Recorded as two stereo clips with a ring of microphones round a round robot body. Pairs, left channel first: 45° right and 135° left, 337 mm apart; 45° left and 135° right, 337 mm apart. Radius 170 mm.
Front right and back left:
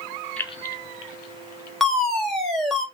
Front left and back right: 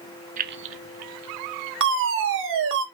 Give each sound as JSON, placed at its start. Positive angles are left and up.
{"t": 0.4, "sound": "keys jangling", "azimuth_deg": -130, "distance_m": 0.6}
{"t": 1.8, "sound": "a fire alarm", "azimuth_deg": -135, "distance_m": 2.5}